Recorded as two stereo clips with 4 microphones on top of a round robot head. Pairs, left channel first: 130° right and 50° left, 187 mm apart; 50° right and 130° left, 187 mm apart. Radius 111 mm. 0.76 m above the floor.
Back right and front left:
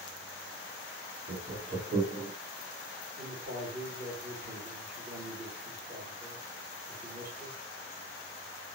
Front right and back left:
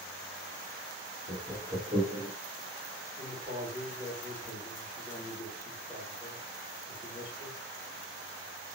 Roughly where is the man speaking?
Ahead left.